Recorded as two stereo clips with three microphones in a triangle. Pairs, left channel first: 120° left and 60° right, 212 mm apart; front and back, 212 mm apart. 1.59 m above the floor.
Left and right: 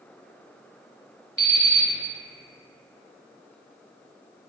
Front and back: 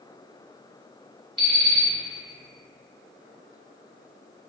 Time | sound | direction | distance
1.4 | an alarm clock | 120° left | 0.9 m